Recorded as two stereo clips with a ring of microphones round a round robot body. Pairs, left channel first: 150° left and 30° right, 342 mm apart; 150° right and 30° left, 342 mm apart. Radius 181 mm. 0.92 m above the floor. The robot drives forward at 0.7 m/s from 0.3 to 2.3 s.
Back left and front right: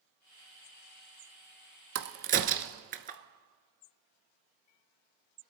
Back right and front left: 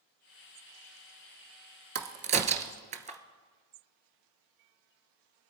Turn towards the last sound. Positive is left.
turn(degrees=-10)